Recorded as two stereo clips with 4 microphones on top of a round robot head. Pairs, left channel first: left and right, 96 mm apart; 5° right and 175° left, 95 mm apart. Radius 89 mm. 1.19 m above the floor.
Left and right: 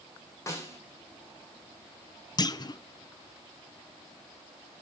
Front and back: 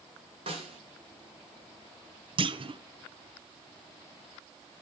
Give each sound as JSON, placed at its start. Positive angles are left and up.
{"t": 0.5, "sound": "a snare drum", "azimuth_deg": 150, "distance_m": 2.5}
{"t": 2.4, "sound": "a clunk", "azimuth_deg": 140, "distance_m": 0.5}